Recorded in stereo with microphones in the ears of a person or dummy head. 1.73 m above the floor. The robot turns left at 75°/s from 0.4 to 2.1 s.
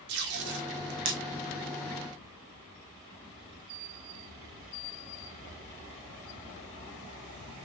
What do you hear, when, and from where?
0.1 s tape being pulled: 60° right (ahead or behind), 0.8 m; by 1.2 s 50° right (ahead or behind), 0.8 m